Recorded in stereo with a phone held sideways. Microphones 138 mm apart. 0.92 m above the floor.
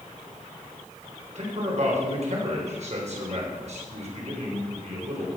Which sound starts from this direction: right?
A man speaking, at 1.4 s.